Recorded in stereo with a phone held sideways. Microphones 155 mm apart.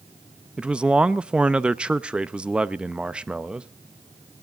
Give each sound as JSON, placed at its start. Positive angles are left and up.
{"t": 0.6, "sound": "a man speaking", "side_deg": -5, "distance_m": 0.6}